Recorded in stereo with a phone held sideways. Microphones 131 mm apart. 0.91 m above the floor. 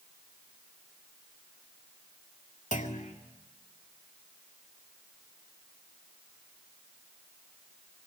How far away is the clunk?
About 2.0 m.